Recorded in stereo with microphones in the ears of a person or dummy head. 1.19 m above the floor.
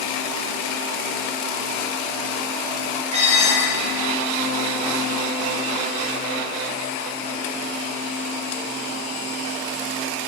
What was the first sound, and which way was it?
Dishes clattering, 40° right (ahead or behind).